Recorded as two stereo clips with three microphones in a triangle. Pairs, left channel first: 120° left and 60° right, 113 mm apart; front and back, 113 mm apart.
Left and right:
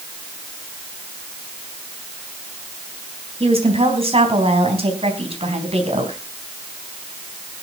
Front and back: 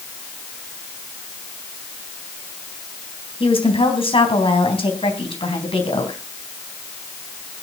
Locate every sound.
3.4 s a woman speaking: 35° right, 4 m